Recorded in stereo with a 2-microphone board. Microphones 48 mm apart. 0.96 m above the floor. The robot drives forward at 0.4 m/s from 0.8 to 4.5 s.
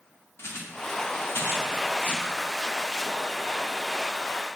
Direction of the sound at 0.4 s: 60° left (ahead or behind).